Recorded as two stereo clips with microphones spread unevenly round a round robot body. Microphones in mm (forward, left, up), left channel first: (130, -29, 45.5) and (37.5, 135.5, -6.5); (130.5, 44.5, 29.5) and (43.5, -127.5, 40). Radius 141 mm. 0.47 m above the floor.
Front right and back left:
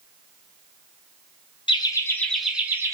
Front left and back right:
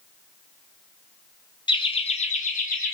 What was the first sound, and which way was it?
Laughter, 10° left.